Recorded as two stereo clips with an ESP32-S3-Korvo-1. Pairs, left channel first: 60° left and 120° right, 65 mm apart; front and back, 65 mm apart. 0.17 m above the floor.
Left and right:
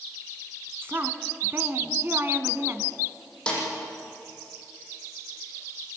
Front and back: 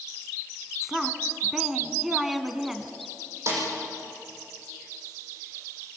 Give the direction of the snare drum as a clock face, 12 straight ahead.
8 o'clock.